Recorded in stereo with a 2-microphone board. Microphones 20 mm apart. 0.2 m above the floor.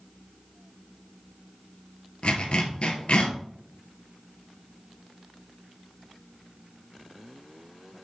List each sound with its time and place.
2.2 s a zipper: 65° left (ahead or behind), 1.7 m